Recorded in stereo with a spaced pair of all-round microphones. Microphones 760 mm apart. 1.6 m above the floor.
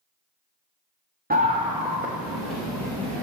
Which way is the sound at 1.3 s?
15° right (ahead or behind).